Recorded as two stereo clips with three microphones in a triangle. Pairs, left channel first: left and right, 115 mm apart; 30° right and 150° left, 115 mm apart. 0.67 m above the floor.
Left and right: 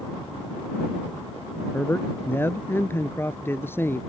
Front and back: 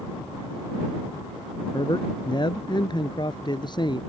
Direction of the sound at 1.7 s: 20° left.